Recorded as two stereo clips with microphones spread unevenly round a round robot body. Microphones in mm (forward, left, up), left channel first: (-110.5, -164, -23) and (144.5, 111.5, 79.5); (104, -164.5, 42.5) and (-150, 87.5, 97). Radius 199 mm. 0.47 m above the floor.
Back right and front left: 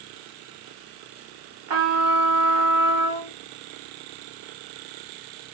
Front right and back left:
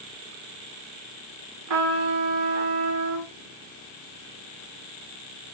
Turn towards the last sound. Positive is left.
turn(degrees=90)